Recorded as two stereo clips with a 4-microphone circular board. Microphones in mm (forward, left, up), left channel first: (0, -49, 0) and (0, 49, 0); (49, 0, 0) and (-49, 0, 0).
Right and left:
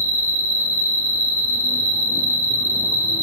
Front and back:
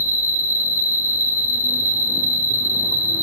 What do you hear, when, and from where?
0.0 s an insect: 130° right, 1.0 m